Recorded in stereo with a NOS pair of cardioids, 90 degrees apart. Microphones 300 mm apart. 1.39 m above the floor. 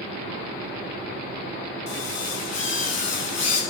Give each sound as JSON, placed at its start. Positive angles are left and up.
{"t": 1.9, "sound": "a drill", "azimuth_deg": 60, "distance_m": 9.5}